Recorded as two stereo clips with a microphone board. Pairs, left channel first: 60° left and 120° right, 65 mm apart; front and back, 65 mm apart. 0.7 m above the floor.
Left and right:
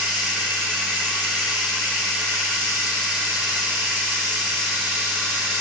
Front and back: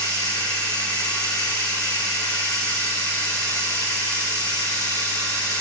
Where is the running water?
15° right, 9 m.